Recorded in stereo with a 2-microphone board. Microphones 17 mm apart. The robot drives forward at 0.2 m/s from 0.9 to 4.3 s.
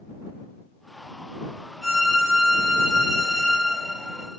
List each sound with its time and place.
1.8 s a violin: centre (ahead or behind), 1.3 m